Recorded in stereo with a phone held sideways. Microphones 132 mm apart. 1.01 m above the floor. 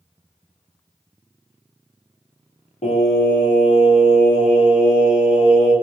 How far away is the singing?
About 1.9 m.